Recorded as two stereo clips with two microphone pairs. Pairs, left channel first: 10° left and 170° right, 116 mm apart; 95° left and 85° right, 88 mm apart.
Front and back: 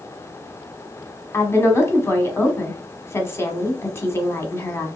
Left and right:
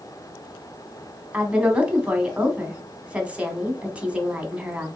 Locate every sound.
1.3 s a woman speaking: 25° right, 1.2 m